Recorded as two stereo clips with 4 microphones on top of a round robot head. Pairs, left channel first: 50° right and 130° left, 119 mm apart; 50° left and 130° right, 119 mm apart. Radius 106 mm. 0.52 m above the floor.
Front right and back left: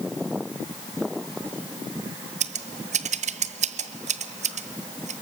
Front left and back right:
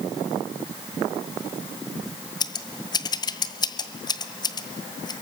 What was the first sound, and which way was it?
Scissors, 105° left.